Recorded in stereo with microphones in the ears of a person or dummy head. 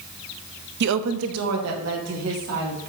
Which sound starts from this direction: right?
A woman speaking, at 0.8 s.